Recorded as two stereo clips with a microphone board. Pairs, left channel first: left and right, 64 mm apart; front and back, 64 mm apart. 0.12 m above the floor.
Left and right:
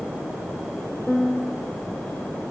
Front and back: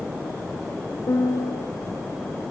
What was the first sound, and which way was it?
A piano, 10° left.